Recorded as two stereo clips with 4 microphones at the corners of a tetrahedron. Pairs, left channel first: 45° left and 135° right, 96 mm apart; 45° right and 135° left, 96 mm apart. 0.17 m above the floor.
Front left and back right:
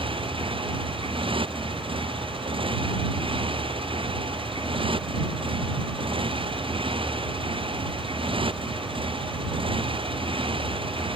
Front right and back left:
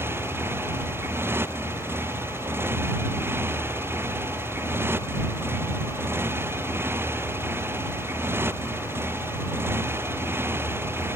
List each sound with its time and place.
0.0 s a motorcycle: 160° right